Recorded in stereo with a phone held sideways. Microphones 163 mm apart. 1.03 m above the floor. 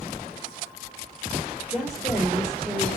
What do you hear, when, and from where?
1.7 s a woman speaking: 10° right (ahead or behind), 5.5 m